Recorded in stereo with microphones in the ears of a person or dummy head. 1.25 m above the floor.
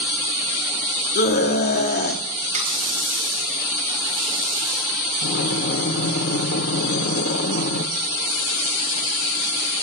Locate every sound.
1.1 s a scream: 55° left (ahead or behind), 2.5 m
2.5 s a running tap: 40° right (ahead or behind), 4 m
5.2 s breathing: 55° left (ahead or behind), 1.4 m